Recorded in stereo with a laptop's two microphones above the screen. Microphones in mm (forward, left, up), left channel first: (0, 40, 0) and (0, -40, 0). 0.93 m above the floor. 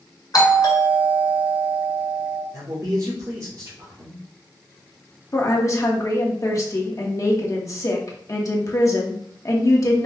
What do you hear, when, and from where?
0.3 s a doorbell: 55° left (ahead or behind), 1.8 m
2.5 s a man speaking: 40° right (ahead or behind), 2.5 m
5.3 s a woman speaking: 45° left (ahead or behind), 1.2 m